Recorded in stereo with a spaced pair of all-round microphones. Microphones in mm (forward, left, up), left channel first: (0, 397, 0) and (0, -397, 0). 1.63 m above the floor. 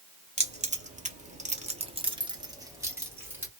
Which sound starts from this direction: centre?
Keys jangling, at 0.4 s.